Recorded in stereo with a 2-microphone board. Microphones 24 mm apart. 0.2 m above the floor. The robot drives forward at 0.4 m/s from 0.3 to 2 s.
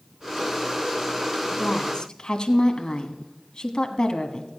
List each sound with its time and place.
1.5 s a woman speaking: 35° left (ahead or behind), 1.3 m